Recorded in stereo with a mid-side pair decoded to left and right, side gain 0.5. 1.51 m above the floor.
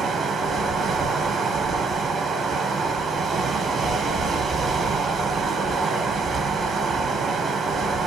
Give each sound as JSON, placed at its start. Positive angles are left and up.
{"t": 0.0, "sound": "running water", "azimuth_deg": -35, "distance_m": 0.9}